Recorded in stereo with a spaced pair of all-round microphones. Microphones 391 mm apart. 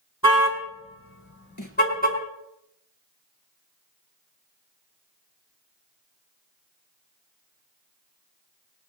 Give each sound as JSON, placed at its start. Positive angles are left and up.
{"t": 0.2, "sound": "a car horn", "side_deg": 40, "distance_m": 4.0}
{"t": 1.6, "sound": "a snare drum", "side_deg": 50, "distance_m": 3.0}